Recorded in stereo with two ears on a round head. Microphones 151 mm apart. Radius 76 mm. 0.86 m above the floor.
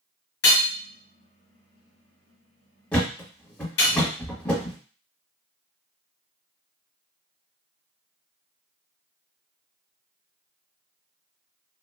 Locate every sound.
0.4 s hammering: 70° left (ahead or behind), 1.3 m
2.9 s a thud: 10° left (ahead or behind), 1.1 m